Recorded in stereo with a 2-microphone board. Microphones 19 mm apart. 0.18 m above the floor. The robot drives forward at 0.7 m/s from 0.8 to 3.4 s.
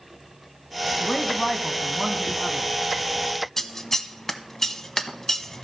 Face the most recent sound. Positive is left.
turn(degrees=20)  # may be behind; listen again after turning